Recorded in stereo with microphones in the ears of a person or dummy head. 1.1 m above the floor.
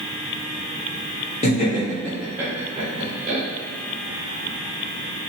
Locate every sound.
1.4 s laughter: 40° left (ahead or behind), 1.0 m; by 3.4 s 40° right (ahead or behind), 1.4 m